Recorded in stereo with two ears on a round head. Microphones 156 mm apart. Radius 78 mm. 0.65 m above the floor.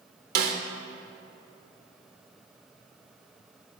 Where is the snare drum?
60° right (ahead or behind), 0.8 m.